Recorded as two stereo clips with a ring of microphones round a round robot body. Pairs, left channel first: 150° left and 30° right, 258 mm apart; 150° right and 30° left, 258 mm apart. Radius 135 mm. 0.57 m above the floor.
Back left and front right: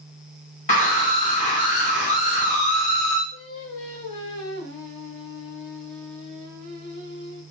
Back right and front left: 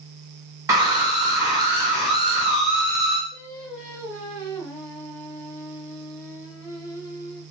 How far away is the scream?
About 1.6 m.